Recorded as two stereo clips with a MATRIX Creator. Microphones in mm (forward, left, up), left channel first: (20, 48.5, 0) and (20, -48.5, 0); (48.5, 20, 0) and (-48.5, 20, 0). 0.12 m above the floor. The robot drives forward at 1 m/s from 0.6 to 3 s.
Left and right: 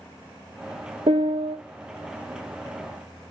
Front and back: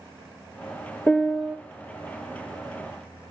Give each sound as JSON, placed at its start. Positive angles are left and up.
{"t": 1.1, "sound": "a piano", "azimuth_deg": -70, "distance_m": 0.9}